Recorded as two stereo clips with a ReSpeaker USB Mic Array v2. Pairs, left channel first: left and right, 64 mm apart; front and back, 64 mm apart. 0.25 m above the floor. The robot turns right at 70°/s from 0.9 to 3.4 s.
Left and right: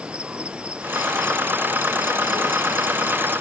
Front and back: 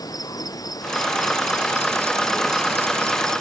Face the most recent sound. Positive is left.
turn(degrees=160)